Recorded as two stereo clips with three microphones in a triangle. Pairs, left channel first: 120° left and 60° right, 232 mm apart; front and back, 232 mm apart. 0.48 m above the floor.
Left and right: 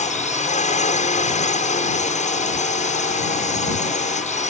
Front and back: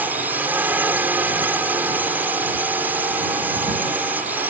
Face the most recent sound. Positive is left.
turn(degrees=105)